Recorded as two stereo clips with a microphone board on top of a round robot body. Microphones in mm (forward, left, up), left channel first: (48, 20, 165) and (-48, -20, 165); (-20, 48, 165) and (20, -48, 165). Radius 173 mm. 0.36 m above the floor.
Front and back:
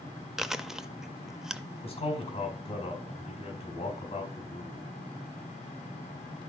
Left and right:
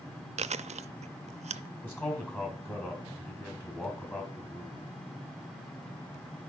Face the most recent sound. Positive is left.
turn(degrees=45)